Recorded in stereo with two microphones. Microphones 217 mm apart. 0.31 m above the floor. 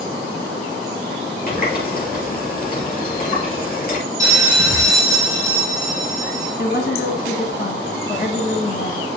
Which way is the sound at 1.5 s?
40° left (ahead or behind).